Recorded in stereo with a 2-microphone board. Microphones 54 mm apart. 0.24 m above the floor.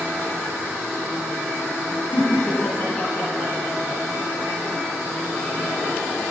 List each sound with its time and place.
2.1 s laughter: 30° left (ahead or behind), 2.5 m